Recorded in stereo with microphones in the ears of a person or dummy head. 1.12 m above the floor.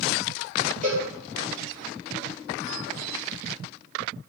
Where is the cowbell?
40° right (ahead or behind), 0.9 m.